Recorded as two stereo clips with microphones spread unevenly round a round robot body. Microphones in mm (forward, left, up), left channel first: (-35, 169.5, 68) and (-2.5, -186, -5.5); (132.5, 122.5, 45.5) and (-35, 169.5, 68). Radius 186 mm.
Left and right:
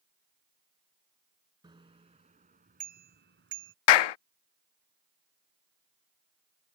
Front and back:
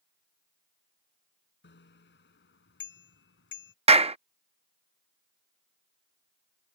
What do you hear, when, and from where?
1.6 s a bicycle bell: 5° right; by 3.8 s 25° right
3.9 s a clap: 105° left